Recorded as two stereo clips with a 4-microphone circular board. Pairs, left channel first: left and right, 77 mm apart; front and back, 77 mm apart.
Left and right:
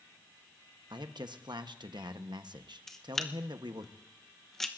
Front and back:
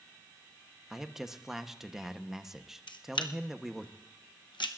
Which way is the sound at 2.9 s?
5° left.